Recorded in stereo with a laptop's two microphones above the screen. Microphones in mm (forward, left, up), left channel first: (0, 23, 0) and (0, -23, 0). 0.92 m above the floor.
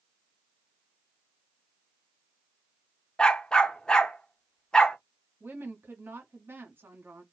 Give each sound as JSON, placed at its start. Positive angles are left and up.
{"t": 3.2, "sound": "a dog barking", "side_deg": 20, "distance_m": 0.6}
{"t": 5.4, "sound": "a woman speaking", "side_deg": -55, "distance_m": 1.2}